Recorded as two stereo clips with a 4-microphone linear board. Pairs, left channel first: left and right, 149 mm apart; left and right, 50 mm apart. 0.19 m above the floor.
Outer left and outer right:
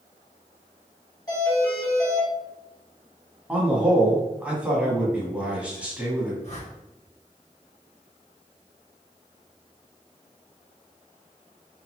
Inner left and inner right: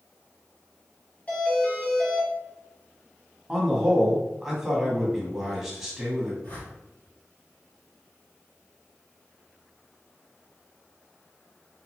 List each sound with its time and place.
1.3 s a doorbell: 25° left (ahead or behind), 1.5 m
3.5 s a man speaking: 10° right (ahead or behind), 1.0 m
6.4 s a whoosh: 45° left (ahead or behind), 1.7 m